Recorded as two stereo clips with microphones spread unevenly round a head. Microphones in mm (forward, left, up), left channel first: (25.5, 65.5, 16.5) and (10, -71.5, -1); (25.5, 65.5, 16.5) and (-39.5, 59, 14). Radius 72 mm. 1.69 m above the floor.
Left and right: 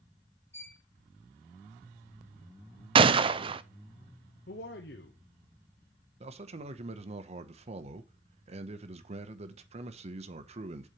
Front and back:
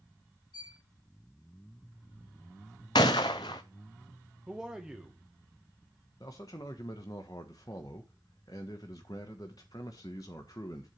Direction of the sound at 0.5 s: 15° left.